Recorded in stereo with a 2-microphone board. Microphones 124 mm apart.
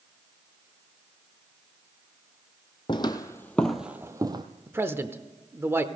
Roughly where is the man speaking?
Centre.